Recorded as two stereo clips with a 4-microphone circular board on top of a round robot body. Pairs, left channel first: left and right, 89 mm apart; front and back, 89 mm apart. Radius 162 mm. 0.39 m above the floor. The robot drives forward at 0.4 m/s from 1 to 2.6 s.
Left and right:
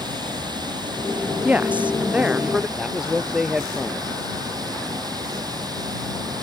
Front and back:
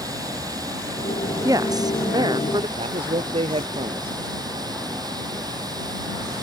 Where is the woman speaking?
155° right; by 2.7 s 165° right.